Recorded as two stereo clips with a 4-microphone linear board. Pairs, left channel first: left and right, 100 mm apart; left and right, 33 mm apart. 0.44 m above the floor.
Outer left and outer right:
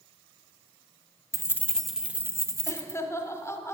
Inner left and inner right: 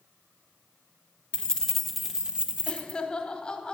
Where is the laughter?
25° left (ahead or behind), 1.0 m.